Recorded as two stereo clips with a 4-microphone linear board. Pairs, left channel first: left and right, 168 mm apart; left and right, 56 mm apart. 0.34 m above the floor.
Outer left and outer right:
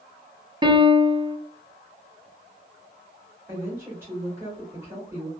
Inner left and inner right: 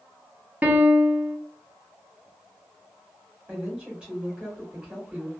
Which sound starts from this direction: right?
A piano, at 0.6 s.